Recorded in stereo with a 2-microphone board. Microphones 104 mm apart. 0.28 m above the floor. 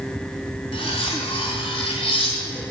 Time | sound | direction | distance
0.7 | cutlery clinking | 65° left (ahead or behind) | 1.1 m